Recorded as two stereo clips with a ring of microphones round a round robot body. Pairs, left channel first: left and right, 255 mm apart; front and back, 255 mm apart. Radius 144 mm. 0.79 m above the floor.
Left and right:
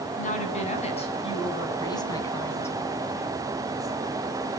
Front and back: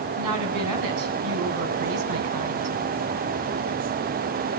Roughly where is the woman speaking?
Behind left.